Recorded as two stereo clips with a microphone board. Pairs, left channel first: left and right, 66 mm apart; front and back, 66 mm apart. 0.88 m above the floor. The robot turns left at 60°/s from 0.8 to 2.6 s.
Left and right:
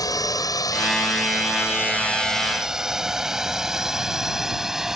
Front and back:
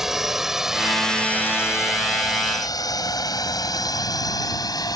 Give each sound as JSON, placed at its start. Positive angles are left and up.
{"t": 0.0, "sound": "a drone", "azimuth_deg": 95}